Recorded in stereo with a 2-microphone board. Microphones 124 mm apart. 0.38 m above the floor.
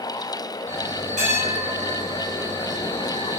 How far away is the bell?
About 2.5 m.